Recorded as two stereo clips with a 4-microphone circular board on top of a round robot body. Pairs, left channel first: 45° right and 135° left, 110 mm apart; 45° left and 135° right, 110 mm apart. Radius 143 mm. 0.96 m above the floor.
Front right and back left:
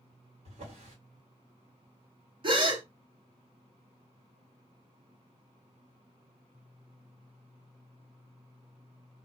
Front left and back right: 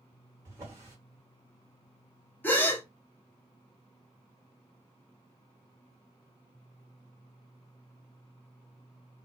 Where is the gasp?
115° left, 1.1 m.